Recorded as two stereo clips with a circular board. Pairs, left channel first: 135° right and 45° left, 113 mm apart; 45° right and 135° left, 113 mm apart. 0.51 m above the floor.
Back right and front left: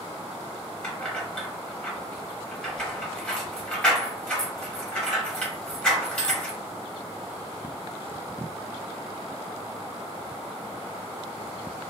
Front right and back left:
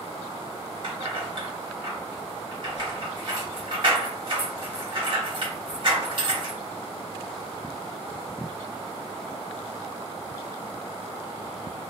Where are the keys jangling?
150° left, 0.8 m.